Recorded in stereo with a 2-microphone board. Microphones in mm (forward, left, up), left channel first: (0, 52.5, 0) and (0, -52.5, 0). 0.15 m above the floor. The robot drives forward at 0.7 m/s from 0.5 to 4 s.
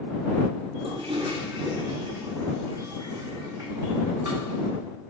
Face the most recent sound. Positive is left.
turn(degrees=-25)  # may be behind; listen again after turning